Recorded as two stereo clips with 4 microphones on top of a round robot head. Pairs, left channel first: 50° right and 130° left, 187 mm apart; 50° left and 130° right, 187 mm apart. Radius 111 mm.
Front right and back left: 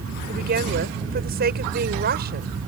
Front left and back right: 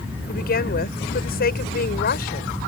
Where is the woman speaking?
90° left.